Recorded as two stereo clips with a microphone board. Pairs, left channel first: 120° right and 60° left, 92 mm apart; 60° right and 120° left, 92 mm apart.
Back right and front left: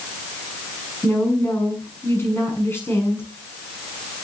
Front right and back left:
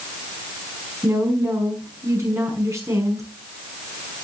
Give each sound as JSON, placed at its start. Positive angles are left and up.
{"t": 1.0, "sound": "a woman speaking", "azimuth_deg": 175, "distance_m": 6.0}